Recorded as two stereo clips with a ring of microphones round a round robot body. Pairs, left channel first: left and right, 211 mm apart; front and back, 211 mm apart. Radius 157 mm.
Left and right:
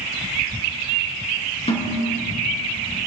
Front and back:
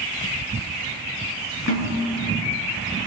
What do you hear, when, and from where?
1.7 s a snare drum: 30° left, 5 m